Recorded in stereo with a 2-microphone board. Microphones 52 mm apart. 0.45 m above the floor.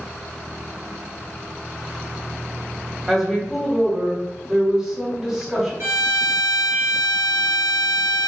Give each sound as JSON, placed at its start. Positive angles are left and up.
{"t": 3.1, "sound": "a woman speaking", "side_deg": -15, "distance_m": 1.1}
{"t": 5.8, "sound": "a violin", "side_deg": -60, "distance_m": 0.6}